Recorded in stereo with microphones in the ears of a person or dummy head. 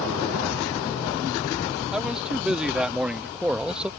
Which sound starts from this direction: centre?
A man speaking, at 1.9 s.